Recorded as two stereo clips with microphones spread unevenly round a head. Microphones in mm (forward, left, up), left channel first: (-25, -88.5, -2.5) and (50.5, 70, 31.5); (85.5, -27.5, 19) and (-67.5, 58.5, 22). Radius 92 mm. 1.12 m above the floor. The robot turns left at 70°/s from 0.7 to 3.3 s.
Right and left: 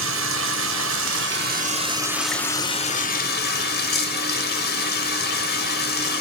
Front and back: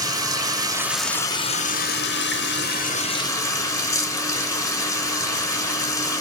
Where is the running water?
80° left, 0.8 m; by 6.2 s 100° right, 0.8 m.